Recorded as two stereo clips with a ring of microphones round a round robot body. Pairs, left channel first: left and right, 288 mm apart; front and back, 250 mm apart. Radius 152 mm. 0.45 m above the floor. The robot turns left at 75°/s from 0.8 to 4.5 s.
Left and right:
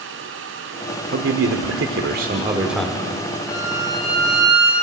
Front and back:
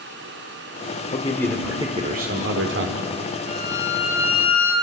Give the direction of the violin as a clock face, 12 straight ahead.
10 o'clock.